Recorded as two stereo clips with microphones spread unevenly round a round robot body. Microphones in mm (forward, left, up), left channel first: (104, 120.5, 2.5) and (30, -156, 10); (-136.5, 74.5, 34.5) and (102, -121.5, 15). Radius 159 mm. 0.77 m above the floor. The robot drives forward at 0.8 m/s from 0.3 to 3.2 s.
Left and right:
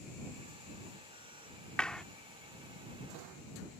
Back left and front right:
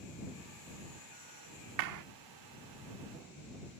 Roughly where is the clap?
Ahead.